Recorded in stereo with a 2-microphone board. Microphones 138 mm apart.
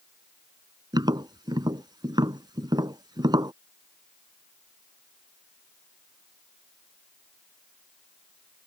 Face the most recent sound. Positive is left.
turn(degrees=-30)  # may be behind; listen again after turning